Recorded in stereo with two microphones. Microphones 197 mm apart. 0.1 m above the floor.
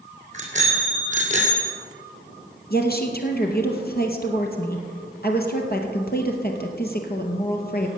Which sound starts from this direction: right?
A bicycle bell, at 0.3 s.